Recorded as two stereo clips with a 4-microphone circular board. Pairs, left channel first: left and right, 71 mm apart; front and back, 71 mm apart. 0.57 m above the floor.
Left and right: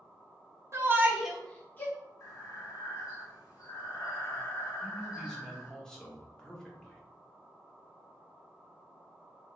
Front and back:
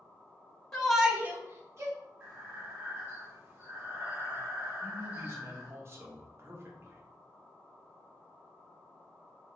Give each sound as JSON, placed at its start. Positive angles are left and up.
{"t": 0.7, "sound": "a shout", "azimuth_deg": -80, "distance_m": 0.8}
{"t": 2.2, "sound": "breathing", "azimuth_deg": 120, "distance_m": 1.3}
{"t": 4.8, "sound": "a man speaking", "azimuth_deg": 165, "distance_m": 0.9}